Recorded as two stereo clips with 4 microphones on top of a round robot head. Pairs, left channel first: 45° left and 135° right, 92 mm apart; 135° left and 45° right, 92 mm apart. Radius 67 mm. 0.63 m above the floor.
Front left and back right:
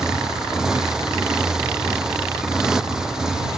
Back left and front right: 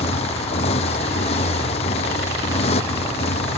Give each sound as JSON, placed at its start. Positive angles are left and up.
{"t": 0.0, "sound": "a motorcycle", "azimuth_deg": 145}